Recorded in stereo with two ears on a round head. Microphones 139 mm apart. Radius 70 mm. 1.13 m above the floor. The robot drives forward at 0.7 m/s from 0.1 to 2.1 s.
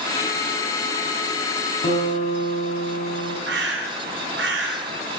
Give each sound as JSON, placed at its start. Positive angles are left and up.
{"t": 1.8, "sound": "a guitar", "side_deg": 45, "distance_m": 4.5}
{"t": 3.5, "sound": "a bird", "side_deg": -80, "distance_m": 3.5}